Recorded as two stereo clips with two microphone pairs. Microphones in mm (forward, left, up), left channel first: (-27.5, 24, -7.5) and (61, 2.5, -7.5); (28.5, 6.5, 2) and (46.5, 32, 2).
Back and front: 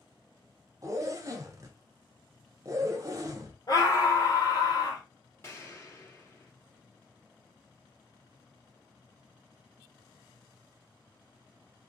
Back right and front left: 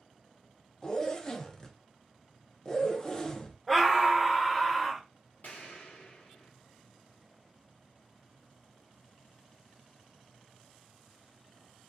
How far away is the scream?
About 0.8 m.